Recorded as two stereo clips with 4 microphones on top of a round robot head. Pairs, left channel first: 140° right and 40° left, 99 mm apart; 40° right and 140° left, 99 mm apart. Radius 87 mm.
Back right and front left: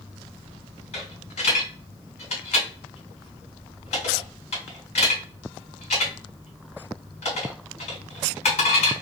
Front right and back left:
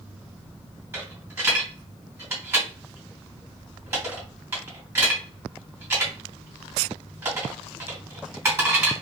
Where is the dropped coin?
150° right, 2.5 m.